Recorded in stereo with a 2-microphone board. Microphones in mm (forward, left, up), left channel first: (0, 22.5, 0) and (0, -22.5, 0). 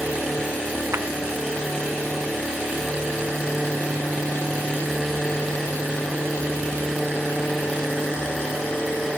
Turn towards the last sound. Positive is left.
turn(degrees=-65)  # may be behind; listen again after turning